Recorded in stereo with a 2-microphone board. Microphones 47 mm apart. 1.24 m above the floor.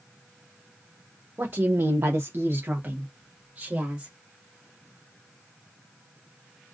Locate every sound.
1.4 s a woman speaking: 45° right (ahead or behind), 0.7 m; by 4.1 s 20° right (ahead or behind), 1.9 m